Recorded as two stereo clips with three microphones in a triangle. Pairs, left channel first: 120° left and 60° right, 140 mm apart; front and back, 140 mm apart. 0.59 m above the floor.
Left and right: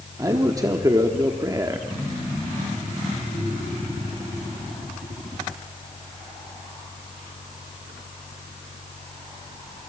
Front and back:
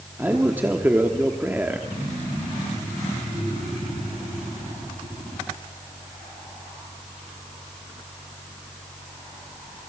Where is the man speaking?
110° right, 1.1 m.